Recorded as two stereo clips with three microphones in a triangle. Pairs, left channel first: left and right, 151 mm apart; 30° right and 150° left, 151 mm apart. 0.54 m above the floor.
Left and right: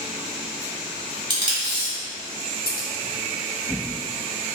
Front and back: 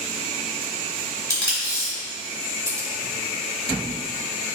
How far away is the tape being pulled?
About 1.2 m.